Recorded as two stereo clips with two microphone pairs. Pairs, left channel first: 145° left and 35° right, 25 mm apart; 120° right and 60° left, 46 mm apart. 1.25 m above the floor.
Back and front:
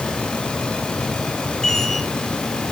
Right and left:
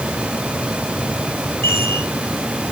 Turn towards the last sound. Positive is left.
turn(degrees=-150)